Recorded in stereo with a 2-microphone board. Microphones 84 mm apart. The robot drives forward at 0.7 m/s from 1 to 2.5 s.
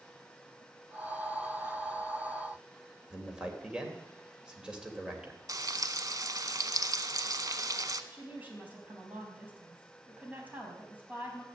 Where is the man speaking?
10° right (ahead or behind), 2.5 m.